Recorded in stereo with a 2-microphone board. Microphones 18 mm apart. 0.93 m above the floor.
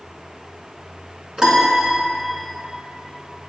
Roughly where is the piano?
Right.